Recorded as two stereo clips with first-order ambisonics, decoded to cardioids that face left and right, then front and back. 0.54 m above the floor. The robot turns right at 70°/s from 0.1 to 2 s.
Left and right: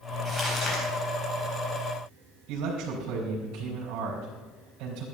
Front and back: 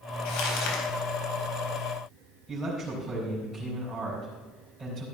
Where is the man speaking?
100° right, 4 m.